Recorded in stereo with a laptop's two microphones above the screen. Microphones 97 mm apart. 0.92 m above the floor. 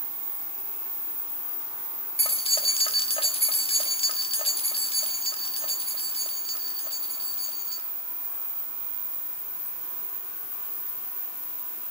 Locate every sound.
2.2 s keys jangling: 80° left, 1.2 m